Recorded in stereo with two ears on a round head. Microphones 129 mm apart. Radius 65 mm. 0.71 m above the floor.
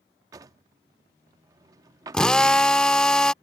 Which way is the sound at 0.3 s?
25° right (ahead or behind).